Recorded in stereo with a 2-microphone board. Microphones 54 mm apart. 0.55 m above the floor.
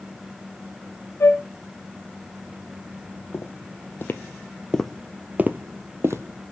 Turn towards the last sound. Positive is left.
turn(degrees=-60)  # may be behind; listen again after turning